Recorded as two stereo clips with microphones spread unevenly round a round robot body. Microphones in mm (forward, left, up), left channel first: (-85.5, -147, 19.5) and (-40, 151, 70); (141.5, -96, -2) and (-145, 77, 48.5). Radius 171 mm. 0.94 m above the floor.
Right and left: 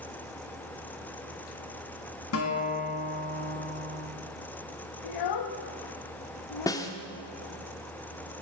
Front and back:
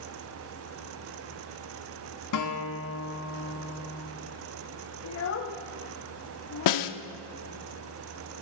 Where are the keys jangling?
I don't hear keys jangling.